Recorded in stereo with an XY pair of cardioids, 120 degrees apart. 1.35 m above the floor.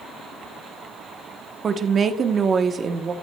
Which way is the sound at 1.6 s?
35° right.